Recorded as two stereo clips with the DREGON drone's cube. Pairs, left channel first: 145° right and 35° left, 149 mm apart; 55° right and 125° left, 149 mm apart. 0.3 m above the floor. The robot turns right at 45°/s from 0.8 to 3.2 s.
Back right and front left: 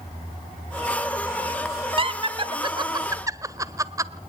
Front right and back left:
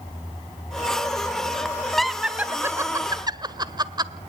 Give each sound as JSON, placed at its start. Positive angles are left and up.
{"t": 2.0, "sound": "laughter", "azimuth_deg": 30, "distance_m": 1.3}